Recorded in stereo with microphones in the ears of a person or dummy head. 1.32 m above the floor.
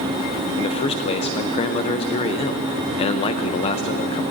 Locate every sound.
0.6 s a man speaking: 30° left (ahead or behind), 0.6 m